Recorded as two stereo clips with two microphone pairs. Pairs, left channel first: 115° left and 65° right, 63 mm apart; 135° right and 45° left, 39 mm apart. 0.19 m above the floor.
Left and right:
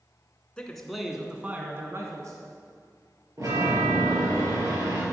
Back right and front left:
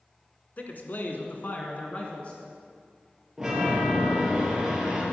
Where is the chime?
40° right, 4 m.